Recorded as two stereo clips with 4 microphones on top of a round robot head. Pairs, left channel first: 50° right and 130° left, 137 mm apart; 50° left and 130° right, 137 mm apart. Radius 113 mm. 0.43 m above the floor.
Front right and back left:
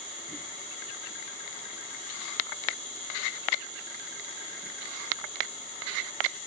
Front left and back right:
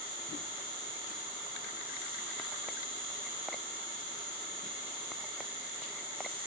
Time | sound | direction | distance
0.0 | an insect | 25° left | 7.5 m